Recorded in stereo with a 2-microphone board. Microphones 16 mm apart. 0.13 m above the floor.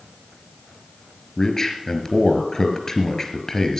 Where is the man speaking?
30° left (ahead or behind), 2.5 m.